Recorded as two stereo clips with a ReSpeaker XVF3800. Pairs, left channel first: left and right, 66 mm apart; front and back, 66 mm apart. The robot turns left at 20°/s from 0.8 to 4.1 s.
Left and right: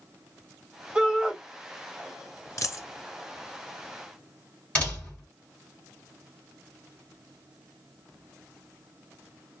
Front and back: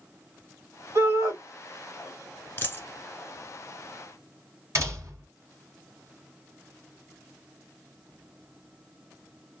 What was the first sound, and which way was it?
A shout, 155° right.